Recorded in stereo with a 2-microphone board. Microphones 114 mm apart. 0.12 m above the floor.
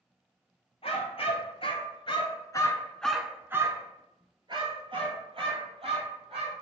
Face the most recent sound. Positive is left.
turn(degrees=-55)  # may be behind; listen again after turning